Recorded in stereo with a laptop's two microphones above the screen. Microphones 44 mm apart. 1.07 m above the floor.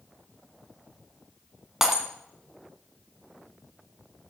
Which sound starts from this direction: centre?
Breaking glass, at 1.8 s.